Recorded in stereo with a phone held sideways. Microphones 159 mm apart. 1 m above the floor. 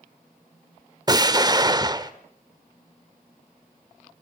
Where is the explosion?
25° right (ahead or behind), 1.2 m.